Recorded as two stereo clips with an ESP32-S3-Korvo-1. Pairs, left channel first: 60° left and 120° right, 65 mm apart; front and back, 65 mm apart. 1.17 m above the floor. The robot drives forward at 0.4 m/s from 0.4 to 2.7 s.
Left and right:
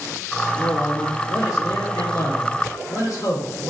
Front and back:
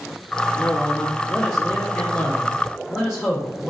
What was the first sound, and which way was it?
A man speaking, 65° left.